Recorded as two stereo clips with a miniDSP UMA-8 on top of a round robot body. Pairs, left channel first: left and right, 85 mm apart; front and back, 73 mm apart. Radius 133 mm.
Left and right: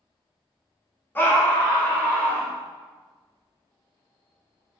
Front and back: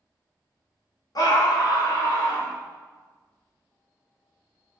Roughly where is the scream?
Ahead left.